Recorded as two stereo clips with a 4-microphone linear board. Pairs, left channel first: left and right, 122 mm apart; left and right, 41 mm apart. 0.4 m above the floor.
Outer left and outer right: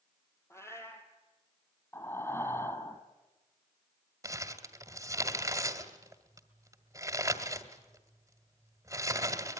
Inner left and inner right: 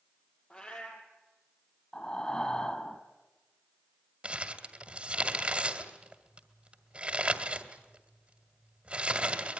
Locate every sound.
0.5 s a cat meowing: 25° left (ahead or behind), 3.5 m
1.9 s breathing: 25° left (ahead or behind), 1.8 m
4.2 s crumpling: 25° right (ahead or behind), 1.9 m